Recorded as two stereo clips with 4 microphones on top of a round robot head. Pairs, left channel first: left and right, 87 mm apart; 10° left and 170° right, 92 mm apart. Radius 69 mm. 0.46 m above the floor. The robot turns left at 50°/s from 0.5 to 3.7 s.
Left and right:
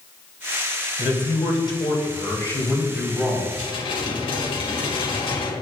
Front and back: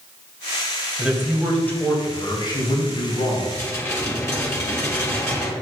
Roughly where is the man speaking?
Left.